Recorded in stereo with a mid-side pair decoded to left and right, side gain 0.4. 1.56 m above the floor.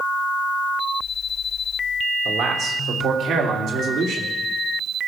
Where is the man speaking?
65° right, 2.5 m; by 4.3 s 80° right, 3.5 m.